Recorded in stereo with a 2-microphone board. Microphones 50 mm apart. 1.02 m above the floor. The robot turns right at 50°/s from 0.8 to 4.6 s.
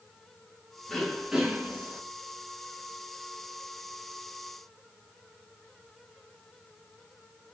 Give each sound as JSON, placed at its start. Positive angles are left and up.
{"t": 0.9, "sound": "throat clearing", "azimuth_deg": 170, "distance_m": 1.0}